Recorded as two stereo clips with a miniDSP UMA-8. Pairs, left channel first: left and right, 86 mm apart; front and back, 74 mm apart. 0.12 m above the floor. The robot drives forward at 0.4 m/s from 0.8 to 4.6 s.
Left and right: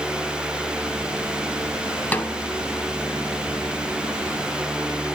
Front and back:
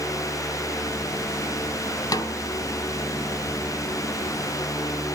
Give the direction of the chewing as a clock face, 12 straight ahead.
No chewing in this recording.